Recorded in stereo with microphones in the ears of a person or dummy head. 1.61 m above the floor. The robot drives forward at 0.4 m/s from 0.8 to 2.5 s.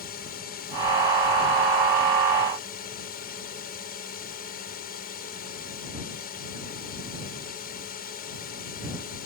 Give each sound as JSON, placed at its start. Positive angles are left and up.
{"t": 0.0, "sound": "a drone", "side_deg": 50}